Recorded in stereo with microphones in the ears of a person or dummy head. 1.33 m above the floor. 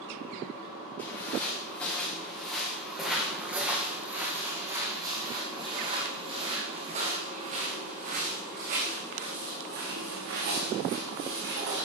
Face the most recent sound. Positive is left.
turn(degrees=-65)  # may be behind; listen again after turning